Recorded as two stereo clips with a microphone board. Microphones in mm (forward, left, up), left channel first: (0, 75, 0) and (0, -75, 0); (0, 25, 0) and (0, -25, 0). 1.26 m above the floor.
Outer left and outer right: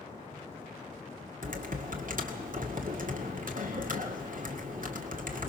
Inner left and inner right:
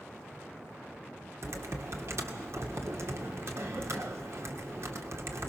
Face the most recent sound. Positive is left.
turn(degrees=-65)  # may be behind; listen again after turning